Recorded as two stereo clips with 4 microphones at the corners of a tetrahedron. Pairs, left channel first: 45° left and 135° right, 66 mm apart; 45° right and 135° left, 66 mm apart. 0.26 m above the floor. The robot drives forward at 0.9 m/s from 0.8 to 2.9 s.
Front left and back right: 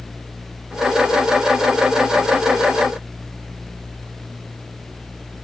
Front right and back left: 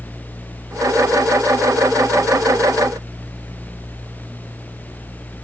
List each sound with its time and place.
Only background noise.